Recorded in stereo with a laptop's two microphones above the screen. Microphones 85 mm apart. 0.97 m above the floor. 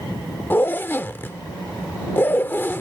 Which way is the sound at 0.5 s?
25° left (ahead or behind).